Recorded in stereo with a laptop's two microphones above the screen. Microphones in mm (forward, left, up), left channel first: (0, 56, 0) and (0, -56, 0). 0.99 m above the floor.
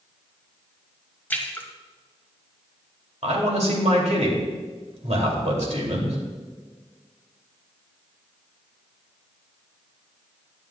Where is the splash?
15° left (ahead or behind), 1.4 m.